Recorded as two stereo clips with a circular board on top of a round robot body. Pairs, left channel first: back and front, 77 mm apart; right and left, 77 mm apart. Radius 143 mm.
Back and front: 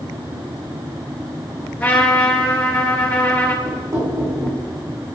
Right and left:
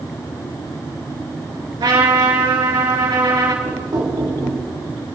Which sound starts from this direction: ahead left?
Knocking, at 3.6 s.